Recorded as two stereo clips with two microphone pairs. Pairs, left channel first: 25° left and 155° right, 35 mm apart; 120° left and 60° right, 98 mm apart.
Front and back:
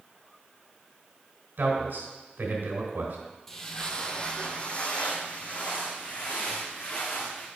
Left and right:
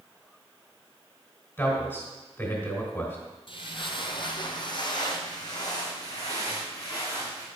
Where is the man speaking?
170° right, 3 m.